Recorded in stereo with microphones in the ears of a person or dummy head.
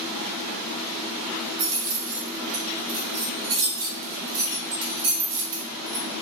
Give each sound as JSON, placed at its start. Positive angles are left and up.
{"t": 1.6, "sound": "keys jangling", "side_deg": -50, "distance_m": 1.6}